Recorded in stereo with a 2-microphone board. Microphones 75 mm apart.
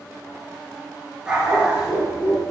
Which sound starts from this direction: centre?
A dog barking, at 1.3 s.